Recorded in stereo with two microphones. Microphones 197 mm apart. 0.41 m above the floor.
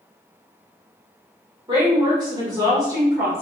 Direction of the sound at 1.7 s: 25° right (ahead or behind).